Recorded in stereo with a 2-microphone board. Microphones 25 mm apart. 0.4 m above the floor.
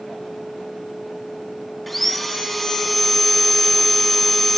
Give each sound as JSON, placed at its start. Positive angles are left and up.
{"t": 1.9, "sound": "sawing", "side_deg": 5, "distance_m": 1.8}